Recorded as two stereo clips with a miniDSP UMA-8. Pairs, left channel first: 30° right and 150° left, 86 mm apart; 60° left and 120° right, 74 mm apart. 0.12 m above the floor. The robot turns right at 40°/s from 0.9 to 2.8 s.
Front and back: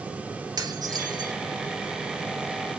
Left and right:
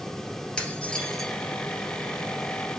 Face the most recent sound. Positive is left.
turn(degrees=-150)